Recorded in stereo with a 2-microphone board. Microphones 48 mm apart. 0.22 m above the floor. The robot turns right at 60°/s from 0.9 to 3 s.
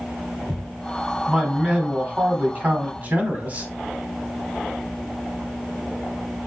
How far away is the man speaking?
About 1.3 m.